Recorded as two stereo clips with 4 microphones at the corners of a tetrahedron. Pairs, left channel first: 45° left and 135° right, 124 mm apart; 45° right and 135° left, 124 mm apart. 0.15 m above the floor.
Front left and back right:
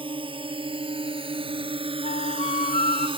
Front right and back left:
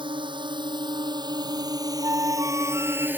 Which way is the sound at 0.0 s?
Straight behind.